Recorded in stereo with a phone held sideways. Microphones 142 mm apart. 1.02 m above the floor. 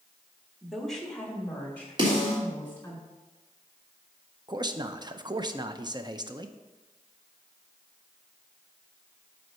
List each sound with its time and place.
0.6 s a woman speaking: centre (ahead or behind), 1.6 m; by 3.0 s 15° left (ahead or behind), 4 m
2.0 s a snare drum: 35° right (ahead or behind), 3.5 m
4.5 s a man speaking: 35° right (ahead or behind), 0.5 m